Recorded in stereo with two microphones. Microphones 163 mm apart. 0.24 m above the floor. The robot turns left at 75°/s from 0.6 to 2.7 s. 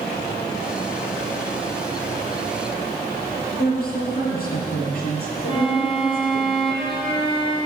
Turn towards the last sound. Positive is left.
turn(degrees=30)  # may be behind; listen again after turning